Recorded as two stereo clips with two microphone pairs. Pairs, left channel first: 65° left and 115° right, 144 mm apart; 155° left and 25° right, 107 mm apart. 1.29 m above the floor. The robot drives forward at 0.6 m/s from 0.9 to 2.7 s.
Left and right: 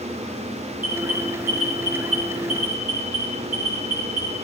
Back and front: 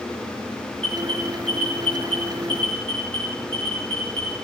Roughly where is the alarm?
Behind right.